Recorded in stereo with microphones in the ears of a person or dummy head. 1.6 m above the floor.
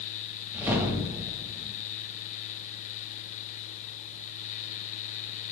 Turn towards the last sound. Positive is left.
turn(degrees=-15)  # may be behind; listen again after turning